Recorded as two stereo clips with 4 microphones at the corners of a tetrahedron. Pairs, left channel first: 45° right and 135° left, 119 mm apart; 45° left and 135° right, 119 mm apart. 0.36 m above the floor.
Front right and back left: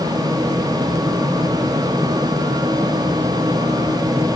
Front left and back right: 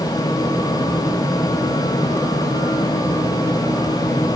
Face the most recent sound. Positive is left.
No sound to turn to.